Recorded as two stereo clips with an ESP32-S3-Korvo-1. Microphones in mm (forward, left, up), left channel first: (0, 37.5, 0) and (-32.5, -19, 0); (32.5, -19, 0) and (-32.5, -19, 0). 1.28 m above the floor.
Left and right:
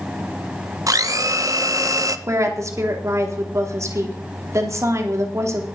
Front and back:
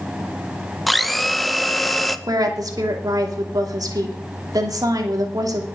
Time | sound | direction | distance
0.9 | a blender | 90° right | 0.8 m
2.3 | a woman speaking | 160° right | 2.5 m